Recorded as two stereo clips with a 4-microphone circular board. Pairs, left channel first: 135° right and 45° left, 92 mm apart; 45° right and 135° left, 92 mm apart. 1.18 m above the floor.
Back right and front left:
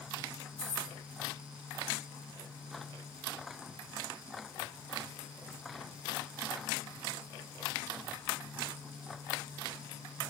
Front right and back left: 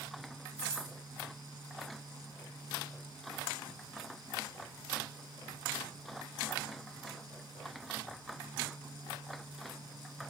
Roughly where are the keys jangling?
Behind right.